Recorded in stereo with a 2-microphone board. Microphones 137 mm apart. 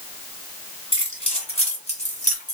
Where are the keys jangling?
40° left (ahead or behind), 2 m; by 2.5 s 65° left (ahead or behind), 1.5 m.